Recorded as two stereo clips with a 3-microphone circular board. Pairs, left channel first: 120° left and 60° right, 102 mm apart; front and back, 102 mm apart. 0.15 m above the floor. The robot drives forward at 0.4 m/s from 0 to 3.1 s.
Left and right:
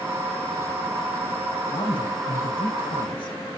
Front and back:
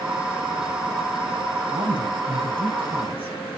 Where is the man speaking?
150° left, 8 m.